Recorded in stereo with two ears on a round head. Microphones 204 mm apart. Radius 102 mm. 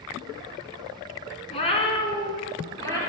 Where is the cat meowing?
30° left (ahead or behind), 1.5 m; by 3.0 s 15° left (ahead or behind), 3.5 m.